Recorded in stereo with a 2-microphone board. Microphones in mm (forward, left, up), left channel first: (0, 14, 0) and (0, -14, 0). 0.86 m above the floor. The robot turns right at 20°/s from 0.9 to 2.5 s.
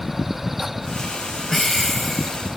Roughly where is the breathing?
Centre.